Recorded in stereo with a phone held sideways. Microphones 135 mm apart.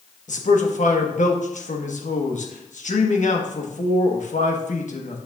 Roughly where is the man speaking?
Left.